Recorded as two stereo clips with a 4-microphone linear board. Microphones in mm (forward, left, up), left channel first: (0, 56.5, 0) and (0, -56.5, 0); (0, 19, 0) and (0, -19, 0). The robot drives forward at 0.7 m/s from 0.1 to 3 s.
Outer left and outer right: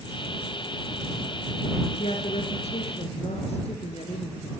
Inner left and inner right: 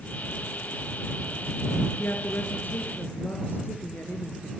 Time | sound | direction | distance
2.0 | a woman speaking | 65° left (ahead or behind) | 4 m